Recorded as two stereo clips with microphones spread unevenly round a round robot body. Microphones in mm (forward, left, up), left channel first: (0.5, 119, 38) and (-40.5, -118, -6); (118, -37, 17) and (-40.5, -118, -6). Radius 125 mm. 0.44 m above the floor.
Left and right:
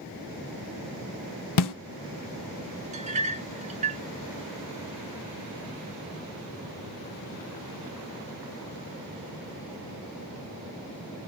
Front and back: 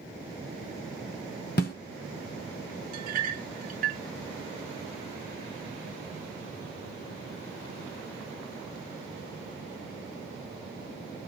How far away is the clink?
About 0.9 m.